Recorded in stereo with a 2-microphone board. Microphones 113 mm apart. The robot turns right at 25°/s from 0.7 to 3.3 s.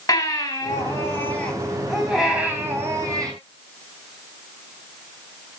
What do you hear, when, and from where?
0.1 s a baby crying: 150° left, 3.5 m; by 3.3 s 145° right, 3.5 m